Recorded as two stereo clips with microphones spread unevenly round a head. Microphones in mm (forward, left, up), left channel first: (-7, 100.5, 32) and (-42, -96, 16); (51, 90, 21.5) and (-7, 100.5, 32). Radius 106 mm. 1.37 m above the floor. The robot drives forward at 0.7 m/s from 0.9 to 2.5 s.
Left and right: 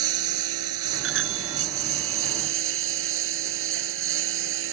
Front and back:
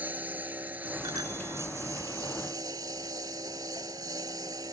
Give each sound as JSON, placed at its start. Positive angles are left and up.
{"t": 0.0, "sound": "a lawn mower", "azimuth_deg": -110}
{"t": 1.0, "sound": "a bicycle bell", "azimuth_deg": -120}